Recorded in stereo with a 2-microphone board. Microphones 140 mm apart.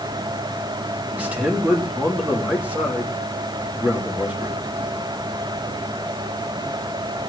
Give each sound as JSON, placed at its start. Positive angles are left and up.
{"t": 1.1, "sound": "a man speaking", "side_deg": -10, "distance_m": 3.0}